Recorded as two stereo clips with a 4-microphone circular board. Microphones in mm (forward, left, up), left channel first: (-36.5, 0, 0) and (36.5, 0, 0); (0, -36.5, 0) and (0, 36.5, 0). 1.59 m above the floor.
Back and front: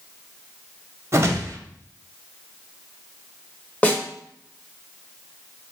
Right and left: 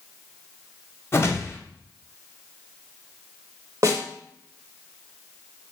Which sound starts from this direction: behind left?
A snare drum, at 3.8 s.